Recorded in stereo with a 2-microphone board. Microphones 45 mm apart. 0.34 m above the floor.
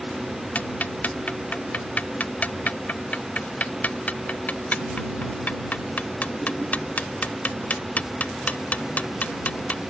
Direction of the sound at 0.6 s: 35° left (ahead or behind).